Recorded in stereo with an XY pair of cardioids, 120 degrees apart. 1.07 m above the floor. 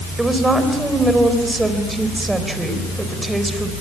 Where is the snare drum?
I don't hear a snare drum.